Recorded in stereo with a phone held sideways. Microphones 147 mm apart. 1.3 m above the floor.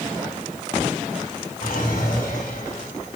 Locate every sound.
1.6 s a drawer: 85° left, 3 m